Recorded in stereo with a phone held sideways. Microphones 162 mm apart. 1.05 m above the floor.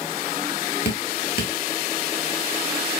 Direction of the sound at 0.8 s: 80° left.